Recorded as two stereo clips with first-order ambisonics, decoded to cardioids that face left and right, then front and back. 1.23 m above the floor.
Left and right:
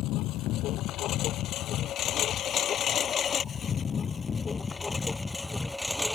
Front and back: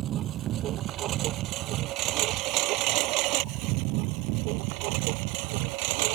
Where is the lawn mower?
130° left; by 6.2 s straight behind.